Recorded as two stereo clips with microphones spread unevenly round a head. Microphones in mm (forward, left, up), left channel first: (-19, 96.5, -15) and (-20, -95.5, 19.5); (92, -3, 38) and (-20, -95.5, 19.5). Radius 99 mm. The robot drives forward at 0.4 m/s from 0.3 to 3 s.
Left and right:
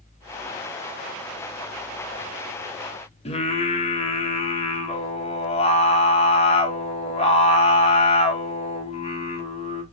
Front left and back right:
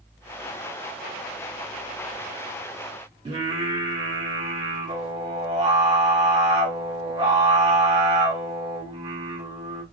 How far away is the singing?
About 0.9 m.